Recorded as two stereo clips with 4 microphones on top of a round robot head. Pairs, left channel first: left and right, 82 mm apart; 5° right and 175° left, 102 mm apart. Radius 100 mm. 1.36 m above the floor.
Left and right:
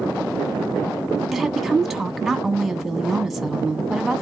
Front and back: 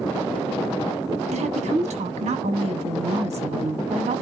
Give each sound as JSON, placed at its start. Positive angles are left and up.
{"t": 1.3, "sound": "a woman speaking", "azimuth_deg": 180, "distance_m": 0.9}